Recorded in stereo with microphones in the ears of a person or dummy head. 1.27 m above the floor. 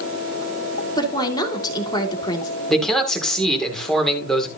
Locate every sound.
1.0 s a woman speaking: 30° left (ahead or behind), 3 m
2.7 s a man speaking: 10° left (ahead or behind), 3 m